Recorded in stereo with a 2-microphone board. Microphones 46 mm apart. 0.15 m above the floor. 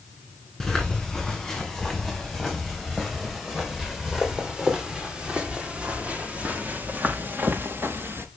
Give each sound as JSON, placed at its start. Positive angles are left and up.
{"t": 0.6, "sound": "footsteps", "side_deg": 10, "distance_m": 5.0}